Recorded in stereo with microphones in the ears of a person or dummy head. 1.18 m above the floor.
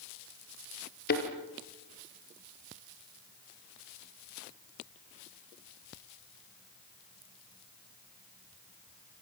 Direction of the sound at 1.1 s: 45° left (ahead or behind).